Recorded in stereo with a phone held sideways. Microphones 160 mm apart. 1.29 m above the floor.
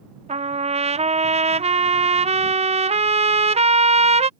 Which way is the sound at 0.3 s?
40° right (ahead or behind).